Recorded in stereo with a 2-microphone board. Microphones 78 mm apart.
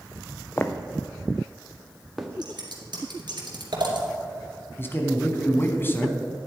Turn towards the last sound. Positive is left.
turn(degrees=30)  # may be behind; listen again after turning